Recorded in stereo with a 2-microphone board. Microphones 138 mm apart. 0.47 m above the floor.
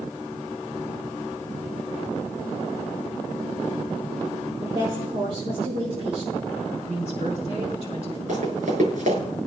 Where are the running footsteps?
60° right (ahead or behind), 6.5 m.